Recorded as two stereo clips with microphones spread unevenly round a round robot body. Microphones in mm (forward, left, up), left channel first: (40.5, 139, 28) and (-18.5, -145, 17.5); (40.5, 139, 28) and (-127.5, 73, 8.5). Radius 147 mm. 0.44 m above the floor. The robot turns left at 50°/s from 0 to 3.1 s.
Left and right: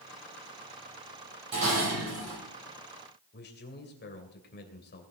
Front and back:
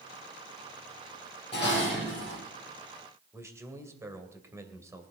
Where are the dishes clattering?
50° right, 8.5 m; by 2.4 s 90° right, 8.5 m.